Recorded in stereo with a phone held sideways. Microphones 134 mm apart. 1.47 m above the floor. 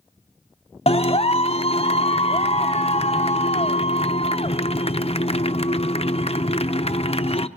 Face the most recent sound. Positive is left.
turn(degrees=55)  # may be behind; listen again after turning